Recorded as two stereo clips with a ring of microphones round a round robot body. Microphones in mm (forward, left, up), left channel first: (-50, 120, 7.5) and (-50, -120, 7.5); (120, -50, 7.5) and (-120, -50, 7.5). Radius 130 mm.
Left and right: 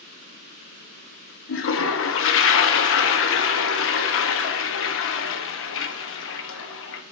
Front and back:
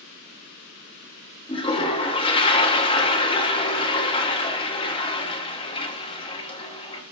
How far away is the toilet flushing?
About 0.8 m.